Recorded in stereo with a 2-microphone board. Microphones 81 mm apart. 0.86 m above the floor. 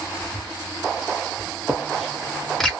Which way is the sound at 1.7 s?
5° left (ahead or behind).